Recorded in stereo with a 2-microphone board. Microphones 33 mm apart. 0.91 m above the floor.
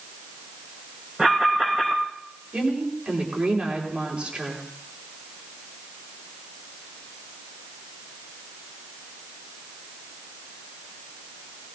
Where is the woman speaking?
35° right (ahead or behind), 3 m.